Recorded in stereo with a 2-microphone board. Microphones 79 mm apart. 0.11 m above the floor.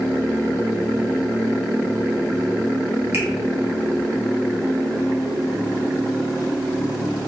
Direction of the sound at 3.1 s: 40° right (ahead or behind).